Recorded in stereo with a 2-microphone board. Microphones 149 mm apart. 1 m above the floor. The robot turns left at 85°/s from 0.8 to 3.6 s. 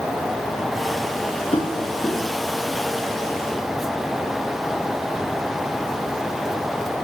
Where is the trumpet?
I don't hear a trumpet.